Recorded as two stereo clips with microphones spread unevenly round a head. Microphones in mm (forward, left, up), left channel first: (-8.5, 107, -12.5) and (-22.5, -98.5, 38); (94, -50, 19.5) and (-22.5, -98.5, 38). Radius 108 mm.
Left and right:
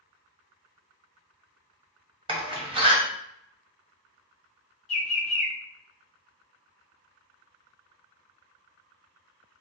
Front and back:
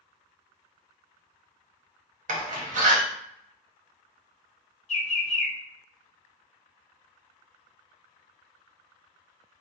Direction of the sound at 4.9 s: 35° left.